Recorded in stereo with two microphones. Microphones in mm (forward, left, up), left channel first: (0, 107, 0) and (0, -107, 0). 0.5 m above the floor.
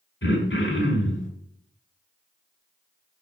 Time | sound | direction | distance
0.2 | throat clearing | 60° left (ahead or behind) | 1.8 m